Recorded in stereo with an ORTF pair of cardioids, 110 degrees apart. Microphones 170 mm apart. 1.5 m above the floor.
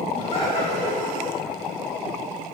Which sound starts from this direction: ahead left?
Laughter, at 0.1 s.